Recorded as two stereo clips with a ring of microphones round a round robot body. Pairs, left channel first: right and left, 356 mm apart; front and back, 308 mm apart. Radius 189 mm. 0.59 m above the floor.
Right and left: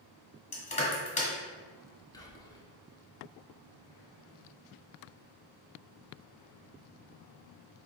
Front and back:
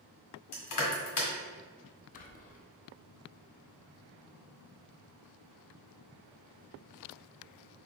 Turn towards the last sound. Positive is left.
turn(degrees=-20)